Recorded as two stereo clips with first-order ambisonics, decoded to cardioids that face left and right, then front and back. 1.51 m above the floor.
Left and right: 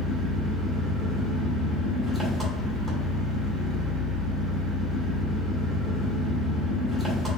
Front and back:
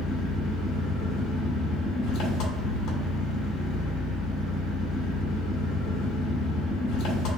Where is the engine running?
20° right, 1.4 m.